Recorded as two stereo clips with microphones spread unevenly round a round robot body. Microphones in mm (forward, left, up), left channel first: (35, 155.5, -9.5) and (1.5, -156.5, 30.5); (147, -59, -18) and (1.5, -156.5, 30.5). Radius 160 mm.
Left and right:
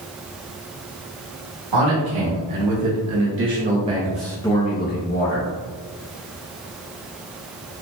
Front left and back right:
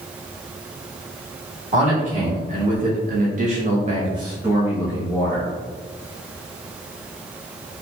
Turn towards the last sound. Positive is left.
turn(degrees=105)